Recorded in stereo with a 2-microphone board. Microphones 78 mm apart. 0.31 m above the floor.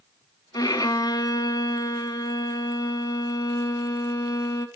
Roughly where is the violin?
Left.